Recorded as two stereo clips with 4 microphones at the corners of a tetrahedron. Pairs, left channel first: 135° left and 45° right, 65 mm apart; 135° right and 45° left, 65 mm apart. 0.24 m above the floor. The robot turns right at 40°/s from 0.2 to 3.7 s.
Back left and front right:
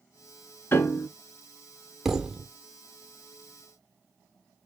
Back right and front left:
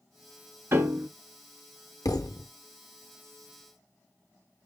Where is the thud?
130° right, 0.6 m; by 2.5 s 110° right, 0.6 m.